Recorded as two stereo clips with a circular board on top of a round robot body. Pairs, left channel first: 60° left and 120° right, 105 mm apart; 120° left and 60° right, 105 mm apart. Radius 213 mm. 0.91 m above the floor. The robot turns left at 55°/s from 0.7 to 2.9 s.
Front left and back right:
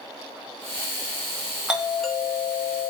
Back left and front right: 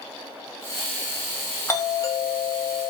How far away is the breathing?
I don't hear breathing.